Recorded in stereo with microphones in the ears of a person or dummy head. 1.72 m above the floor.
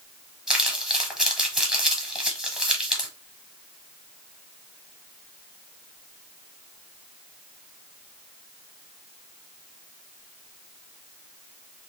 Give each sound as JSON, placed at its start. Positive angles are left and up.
{"t": 0.5, "sound": "crumpling", "side_deg": -5, "distance_m": 1.2}